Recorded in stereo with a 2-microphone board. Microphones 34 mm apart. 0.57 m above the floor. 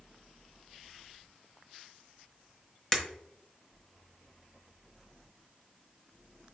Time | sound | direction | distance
2.9 | breaking glass | 15° left (ahead or behind) | 0.8 m